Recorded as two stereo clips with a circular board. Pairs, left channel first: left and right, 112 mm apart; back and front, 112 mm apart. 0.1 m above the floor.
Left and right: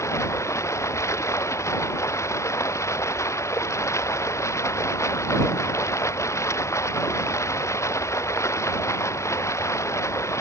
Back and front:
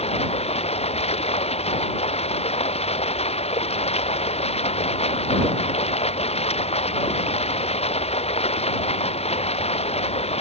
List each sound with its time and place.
0.0 s running water: 155° left